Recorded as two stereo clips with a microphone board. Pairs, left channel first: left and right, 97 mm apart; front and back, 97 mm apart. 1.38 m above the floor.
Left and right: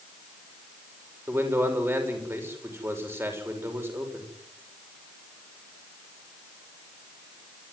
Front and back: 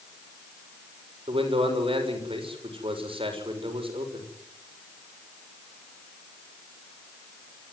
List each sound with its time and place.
1.3 s a man speaking: 155° right, 6.5 m